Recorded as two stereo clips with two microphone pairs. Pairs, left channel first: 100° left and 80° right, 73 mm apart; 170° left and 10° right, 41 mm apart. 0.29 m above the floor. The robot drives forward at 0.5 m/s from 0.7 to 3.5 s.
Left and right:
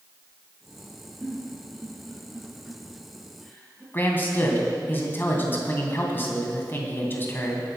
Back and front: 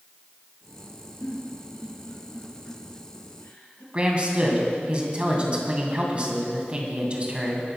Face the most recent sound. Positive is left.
turn(degrees=45)